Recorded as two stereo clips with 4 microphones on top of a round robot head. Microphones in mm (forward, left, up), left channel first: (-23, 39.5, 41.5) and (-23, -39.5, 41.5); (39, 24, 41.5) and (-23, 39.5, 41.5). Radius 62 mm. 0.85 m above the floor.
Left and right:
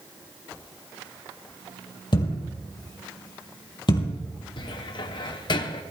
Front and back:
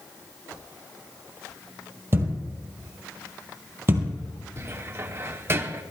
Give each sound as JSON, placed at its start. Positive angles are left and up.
{"t": 2.1, "sound": "a thud", "azimuth_deg": 115, "distance_m": 3.0}
{"t": 4.6, "sound": "a cupboard door", "azimuth_deg": 115, "distance_m": 1.1}